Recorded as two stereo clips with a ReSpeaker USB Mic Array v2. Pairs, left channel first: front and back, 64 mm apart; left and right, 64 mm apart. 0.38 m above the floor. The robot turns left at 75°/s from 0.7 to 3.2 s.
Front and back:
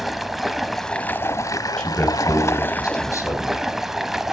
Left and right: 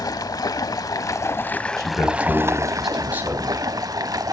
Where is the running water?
90° left, 0.8 m; by 4.3 s 95° right, 0.8 m.